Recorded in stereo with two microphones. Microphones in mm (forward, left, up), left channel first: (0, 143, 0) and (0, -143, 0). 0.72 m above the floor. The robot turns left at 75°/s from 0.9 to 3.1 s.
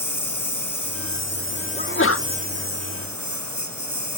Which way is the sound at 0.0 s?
90° left.